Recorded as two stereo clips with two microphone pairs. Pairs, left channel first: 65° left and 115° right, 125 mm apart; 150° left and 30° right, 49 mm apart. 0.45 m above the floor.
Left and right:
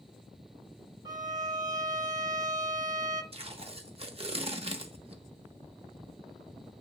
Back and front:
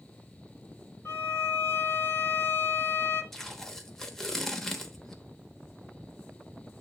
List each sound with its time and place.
1.1 s a violin: 175° right, 1.2 m
3.3 s tape being pulled: 130° right, 0.9 m